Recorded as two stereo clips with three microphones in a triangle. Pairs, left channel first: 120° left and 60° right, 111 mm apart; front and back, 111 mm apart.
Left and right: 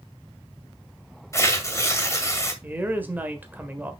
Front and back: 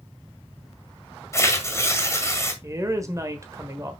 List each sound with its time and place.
1.3 s tearing paper: 60° left, 1.9 m
2.6 s a woman speaking: 130° right, 1.4 m